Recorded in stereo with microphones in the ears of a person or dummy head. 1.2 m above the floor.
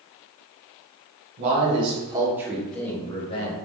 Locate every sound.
1.4 s a man speaking: 40° right (ahead or behind), 1.3 m; by 3.5 s 35° left (ahead or behind), 0.9 m